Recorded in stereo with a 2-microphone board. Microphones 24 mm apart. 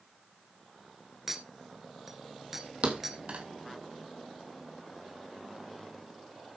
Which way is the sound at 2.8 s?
55° right (ahead or behind).